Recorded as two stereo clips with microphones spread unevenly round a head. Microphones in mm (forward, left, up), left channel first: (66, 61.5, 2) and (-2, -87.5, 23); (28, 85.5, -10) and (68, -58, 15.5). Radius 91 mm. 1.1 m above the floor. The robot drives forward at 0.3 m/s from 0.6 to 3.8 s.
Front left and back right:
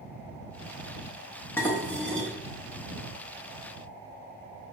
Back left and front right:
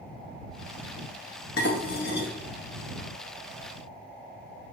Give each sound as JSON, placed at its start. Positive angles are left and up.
{"t": 1.6, "sound": "dishes clattering", "azimuth_deg": 145, "distance_m": 0.8}